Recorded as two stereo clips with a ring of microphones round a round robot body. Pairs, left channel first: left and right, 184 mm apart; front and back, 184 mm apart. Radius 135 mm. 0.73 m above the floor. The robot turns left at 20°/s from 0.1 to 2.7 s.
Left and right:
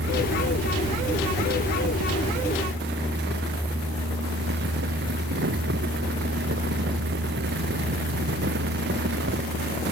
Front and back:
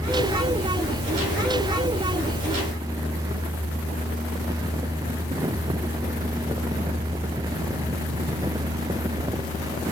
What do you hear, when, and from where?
Only background noise.